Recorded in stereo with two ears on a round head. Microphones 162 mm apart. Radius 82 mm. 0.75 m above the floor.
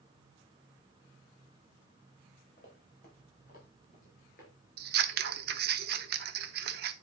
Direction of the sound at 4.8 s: 55° right (ahead or behind).